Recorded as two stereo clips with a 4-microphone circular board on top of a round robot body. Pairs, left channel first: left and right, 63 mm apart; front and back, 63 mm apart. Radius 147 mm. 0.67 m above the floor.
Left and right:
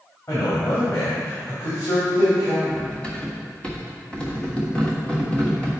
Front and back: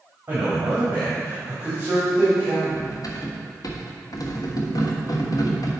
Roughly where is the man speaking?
Behind left.